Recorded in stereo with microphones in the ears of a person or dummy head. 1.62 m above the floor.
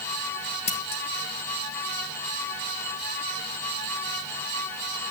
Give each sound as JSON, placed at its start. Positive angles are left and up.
{"t": 0.7, "sound": "scissors", "side_deg": 35, "distance_m": 0.8}